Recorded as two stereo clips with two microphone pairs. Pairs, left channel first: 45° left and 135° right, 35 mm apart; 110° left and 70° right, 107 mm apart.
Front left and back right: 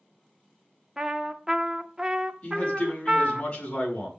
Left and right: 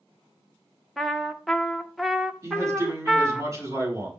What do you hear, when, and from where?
1.0 s a trumpet: 170° right, 0.8 m
2.4 s a man speaking: 10° right, 6 m